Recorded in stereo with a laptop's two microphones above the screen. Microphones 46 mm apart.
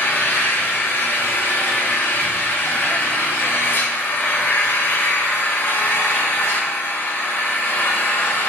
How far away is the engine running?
About 1.0 m.